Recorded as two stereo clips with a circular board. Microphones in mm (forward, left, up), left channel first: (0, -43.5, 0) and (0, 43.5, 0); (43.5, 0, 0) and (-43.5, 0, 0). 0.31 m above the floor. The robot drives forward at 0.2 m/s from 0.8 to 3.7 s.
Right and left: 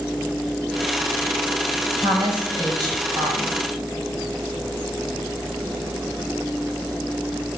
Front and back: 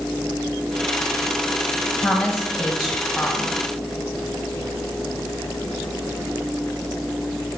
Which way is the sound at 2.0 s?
90° left.